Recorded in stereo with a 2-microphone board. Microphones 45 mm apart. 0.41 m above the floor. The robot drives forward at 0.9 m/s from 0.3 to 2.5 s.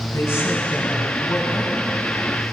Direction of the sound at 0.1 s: 70° left (ahead or behind).